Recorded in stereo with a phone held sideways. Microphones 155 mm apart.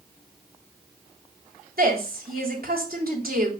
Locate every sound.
1.8 s a woman speaking: 80° right, 3 m